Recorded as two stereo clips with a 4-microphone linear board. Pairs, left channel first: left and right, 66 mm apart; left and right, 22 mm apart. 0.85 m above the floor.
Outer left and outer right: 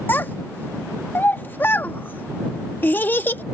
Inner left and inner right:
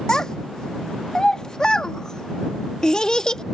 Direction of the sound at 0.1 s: 30° left (ahead or behind).